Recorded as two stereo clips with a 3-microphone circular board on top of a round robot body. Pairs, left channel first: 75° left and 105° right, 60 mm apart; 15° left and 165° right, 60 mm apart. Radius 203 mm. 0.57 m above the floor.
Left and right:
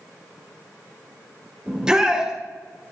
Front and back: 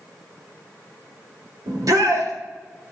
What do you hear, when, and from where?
1.7 s a shout: 175° left, 3.5 m